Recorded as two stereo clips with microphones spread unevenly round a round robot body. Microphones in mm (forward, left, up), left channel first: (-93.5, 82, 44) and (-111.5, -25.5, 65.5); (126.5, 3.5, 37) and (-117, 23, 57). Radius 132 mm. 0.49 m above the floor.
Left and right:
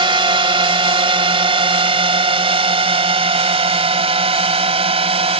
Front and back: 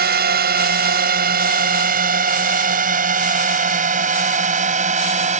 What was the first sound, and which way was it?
A drone, 135° right.